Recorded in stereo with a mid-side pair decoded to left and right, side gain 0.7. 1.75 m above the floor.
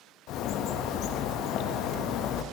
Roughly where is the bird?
Ahead left.